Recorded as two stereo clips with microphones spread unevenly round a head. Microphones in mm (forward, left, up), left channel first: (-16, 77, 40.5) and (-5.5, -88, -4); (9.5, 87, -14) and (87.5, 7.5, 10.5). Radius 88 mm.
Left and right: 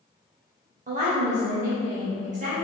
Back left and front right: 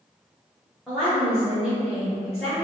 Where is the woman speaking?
135° right, 0.7 m.